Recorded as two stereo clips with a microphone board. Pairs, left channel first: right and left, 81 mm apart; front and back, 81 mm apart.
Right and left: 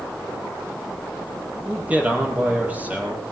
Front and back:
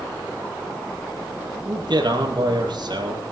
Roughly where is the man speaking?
Behind.